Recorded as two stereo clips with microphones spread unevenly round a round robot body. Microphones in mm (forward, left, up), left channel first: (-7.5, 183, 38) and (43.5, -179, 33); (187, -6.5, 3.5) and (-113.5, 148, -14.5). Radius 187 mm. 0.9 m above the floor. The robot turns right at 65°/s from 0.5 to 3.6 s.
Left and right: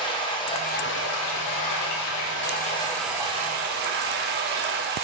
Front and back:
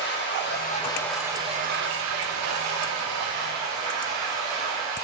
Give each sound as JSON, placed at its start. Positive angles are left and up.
{"t": 0.0, "sound": "running water", "azimuth_deg": 25, "distance_m": 0.8}